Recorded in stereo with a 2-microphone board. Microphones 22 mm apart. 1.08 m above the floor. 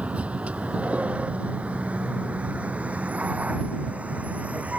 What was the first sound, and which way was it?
A vehicle, 65° right (ahead or behind).